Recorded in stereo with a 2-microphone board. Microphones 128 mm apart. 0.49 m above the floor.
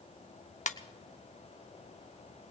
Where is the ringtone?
75° left (ahead or behind), 0.6 m.